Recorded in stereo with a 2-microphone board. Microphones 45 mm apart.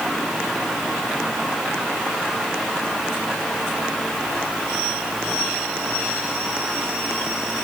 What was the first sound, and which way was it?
Only background noise.